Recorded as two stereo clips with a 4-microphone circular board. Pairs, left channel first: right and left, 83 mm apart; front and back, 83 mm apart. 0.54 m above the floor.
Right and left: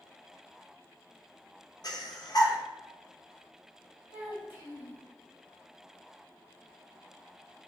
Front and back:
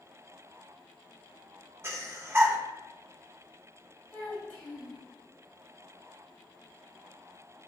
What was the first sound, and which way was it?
Breathing, 120° right.